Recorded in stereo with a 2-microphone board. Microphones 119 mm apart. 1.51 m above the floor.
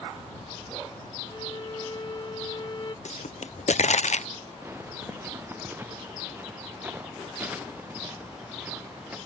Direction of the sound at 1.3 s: 35° left (ahead or behind).